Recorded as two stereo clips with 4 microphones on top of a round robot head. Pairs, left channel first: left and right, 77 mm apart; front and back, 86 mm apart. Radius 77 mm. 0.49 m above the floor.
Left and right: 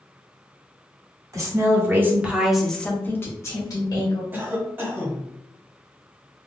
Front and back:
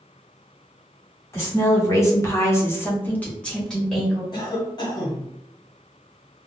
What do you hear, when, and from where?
1.3 s a woman speaking: 50° right, 1.4 m; by 4.2 s 90° left, 1.5 m
4.3 s a cough: 30° right, 1.3 m